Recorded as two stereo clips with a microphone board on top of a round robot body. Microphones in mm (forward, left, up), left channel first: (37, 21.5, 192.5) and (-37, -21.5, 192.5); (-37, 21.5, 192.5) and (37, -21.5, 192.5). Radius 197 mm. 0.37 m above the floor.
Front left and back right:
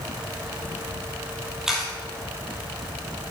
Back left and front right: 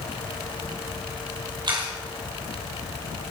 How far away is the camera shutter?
About 3.5 m.